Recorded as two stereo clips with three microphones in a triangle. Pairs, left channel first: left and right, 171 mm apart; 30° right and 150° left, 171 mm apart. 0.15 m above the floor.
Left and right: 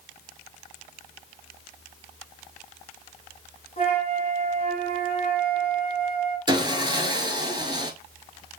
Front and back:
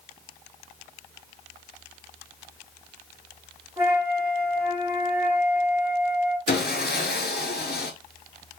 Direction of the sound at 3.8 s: 85° left.